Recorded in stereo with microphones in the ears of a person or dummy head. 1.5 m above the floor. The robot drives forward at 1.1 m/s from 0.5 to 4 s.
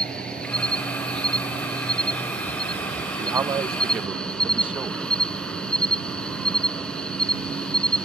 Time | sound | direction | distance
0.0 | an insect | centre (ahead or behind) | ?
3.2 | a man speaking | 20° right (ahead or behind) | ?